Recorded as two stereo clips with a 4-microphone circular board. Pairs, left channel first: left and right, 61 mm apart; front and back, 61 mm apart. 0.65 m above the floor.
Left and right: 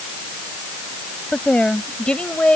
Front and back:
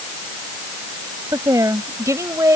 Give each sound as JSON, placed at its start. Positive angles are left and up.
{"t": 1.3, "sound": "a woman speaking", "azimuth_deg": 165}